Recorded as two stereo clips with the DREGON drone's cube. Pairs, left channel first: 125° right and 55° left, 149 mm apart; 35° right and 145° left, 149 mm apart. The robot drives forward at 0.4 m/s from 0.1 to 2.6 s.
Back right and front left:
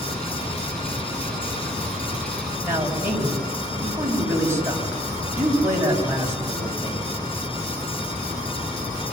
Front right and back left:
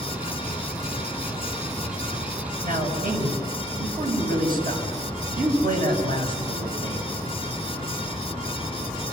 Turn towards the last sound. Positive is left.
turn(degrees=130)